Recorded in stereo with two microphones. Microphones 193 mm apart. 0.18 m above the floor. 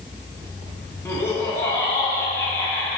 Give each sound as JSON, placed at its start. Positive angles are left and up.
{"t": 1.1, "sound": "laughter", "side_deg": 15, "distance_m": 1.3}